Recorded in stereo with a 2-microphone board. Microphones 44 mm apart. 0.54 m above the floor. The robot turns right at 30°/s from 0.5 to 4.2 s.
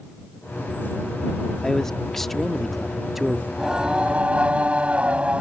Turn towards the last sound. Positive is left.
turn(degrees=-30)  # may be behind; listen again after turning